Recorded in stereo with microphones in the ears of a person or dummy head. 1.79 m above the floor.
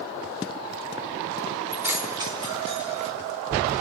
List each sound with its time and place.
1.7 s keys jangling: 5° right (ahead or behind), 1.7 m; by 3.1 s 30° right (ahead or behind), 1.2 m